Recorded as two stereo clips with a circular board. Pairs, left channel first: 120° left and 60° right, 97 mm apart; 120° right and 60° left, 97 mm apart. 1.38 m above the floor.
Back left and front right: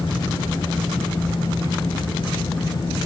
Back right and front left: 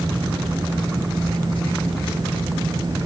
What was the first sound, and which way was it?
Only background noise.